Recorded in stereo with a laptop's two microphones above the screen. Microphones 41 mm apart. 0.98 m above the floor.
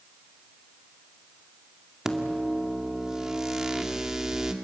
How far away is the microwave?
About 2 m.